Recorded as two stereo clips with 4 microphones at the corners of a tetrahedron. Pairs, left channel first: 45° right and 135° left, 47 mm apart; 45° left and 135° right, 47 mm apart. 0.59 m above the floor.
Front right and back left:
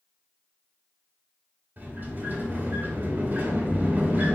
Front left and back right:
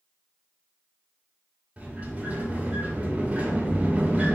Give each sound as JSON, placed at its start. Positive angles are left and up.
{"t": 1.8, "sound": "a sliding door", "azimuth_deg": 170, "distance_m": 2.5}